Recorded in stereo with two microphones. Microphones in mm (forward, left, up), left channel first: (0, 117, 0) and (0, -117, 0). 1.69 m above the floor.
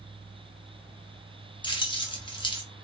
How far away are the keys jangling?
About 0.6 m.